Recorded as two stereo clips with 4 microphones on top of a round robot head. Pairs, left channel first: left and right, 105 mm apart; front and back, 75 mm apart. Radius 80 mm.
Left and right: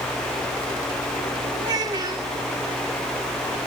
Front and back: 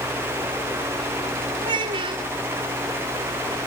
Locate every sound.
1.6 s a child speaking: 150° right, 2.5 m